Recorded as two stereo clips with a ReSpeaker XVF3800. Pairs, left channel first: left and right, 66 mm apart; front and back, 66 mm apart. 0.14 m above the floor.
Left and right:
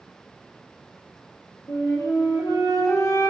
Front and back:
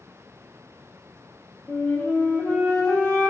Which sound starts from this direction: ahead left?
A flute, at 1.7 s.